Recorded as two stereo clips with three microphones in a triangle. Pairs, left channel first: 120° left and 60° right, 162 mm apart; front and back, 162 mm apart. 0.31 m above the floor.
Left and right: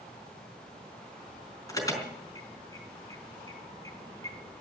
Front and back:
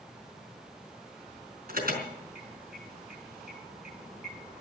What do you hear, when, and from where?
1.7 s an alarm: 170° right, 4.5 m